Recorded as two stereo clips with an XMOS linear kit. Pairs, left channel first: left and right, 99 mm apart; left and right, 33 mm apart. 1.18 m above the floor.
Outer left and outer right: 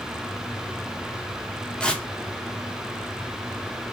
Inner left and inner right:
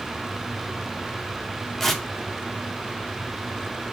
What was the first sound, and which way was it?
Tearing paper, 10° left (ahead or behind).